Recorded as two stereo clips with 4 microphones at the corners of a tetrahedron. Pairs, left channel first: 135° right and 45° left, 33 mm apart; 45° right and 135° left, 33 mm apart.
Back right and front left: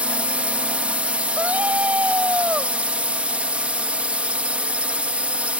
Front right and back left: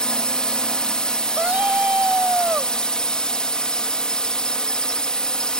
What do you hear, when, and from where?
0.0 s a drone: 10° left
1.4 s a scream: 85° left